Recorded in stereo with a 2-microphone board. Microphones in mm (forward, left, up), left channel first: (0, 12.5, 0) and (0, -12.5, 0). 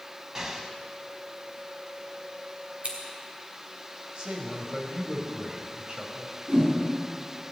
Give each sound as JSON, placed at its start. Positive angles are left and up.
{"t": 0.3, "sound": "an explosion", "side_deg": -25, "distance_m": 1.1}
{"t": 2.8, "sound": "scissors", "side_deg": -50, "distance_m": 3.0}
{"t": 4.2, "sound": "a man speaking", "side_deg": -35, "distance_m": 2.5}
{"t": 6.5, "sound": "a whoosh", "side_deg": -50, "distance_m": 5.5}